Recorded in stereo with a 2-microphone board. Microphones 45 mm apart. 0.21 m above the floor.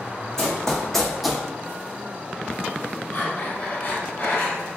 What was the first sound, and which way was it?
Running footsteps, 15° left (ahead or behind).